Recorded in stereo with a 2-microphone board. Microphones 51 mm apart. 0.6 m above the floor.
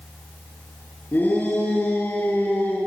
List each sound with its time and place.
1.1 s a shout: 35° left (ahead or behind), 8 m; by 2.8 s 45° left (ahead or behind), 9 m